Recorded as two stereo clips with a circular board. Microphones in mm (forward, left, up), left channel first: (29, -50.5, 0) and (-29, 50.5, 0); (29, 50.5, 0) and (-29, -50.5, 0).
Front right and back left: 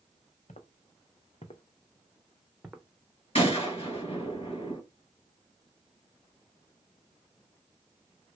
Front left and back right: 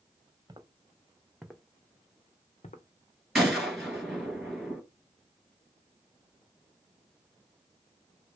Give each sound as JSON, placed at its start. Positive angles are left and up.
{"t": 0.5, "sound": "footsteps", "azimuth_deg": -60, "distance_m": 1.1}
{"t": 3.4, "sound": "a gunshot", "azimuth_deg": -30, "distance_m": 2.5}